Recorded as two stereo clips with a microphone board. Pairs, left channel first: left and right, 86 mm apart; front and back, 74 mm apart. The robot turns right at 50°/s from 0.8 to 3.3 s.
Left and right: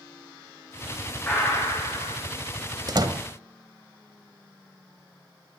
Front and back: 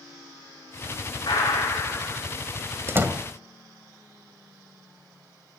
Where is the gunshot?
20° left, 7 m; by 2.2 s 70° left, 7 m.